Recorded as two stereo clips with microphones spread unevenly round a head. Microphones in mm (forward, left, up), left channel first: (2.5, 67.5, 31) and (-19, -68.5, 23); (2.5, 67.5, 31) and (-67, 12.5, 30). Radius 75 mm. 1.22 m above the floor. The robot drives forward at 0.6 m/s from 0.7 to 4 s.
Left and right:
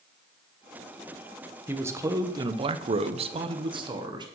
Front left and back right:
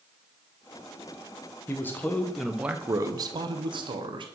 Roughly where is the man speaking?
Ahead right.